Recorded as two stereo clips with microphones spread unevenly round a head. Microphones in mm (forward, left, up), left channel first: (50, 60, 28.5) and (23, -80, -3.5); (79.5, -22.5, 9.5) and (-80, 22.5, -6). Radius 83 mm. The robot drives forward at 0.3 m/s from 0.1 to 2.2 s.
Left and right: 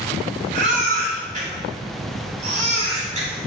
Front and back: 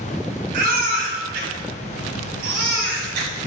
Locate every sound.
0.5 s a baby crying: 155° right, 2.5 m; by 3.5 s 160° right, 3 m